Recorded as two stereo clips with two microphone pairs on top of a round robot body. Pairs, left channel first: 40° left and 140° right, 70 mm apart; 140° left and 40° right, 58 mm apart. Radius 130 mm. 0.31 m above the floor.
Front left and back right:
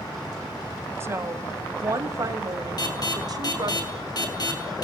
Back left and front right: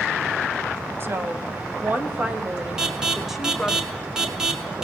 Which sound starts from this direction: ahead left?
An alarm, at 2.8 s.